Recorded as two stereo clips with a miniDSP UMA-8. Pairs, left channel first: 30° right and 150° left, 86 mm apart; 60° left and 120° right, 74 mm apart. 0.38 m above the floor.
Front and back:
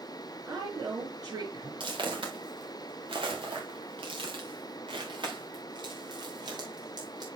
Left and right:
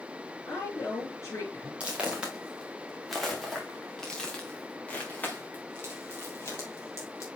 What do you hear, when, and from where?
0.5 s a woman speaking: 110° left, 4.5 m
1.8 s footsteps: 165° left, 2.5 m; by 7.2 s 110° left, 3.5 m